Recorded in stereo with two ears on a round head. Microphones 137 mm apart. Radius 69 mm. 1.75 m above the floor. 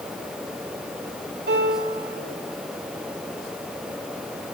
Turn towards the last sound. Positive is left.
turn(degrees=-70)  # may be behind; listen again after turning